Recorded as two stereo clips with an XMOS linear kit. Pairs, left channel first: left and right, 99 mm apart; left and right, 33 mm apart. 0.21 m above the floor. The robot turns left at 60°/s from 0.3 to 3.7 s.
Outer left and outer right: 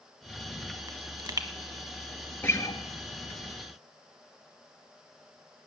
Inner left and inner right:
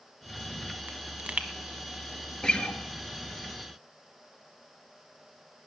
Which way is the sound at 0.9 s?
40° right (ahead or behind).